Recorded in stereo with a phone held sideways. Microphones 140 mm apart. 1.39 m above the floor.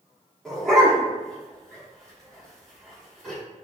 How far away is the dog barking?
About 1.1 m.